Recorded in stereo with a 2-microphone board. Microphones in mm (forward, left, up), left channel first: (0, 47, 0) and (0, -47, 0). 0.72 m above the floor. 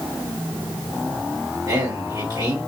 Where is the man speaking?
40° right (ahead or behind), 2 m.